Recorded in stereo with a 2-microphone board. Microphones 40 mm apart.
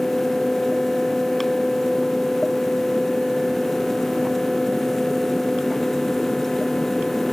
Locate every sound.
Only background noise.